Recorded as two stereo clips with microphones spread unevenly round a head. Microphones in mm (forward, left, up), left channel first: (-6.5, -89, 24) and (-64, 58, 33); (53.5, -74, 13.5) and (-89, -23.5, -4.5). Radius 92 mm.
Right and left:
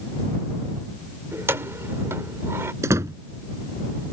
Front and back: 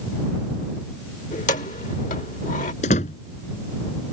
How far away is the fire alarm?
I don't hear a fire alarm.